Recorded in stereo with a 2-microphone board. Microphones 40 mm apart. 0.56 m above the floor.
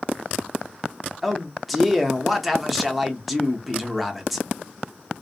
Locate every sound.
1.2 s a man speaking: centre (ahead or behind), 0.6 m